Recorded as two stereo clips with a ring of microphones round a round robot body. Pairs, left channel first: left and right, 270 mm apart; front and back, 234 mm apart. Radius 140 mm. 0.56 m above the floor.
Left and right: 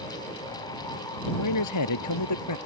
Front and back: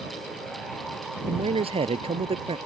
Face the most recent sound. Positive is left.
turn(degrees=115)